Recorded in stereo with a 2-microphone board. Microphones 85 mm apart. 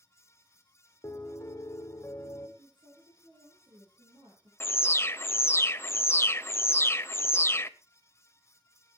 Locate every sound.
1.0 s a piano: 40° left (ahead or behind), 1.8 m
2.6 s a woman speaking: 75° right (ahead or behind), 5.5 m
4.6 s an alarm: 30° left (ahead or behind), 0.7 m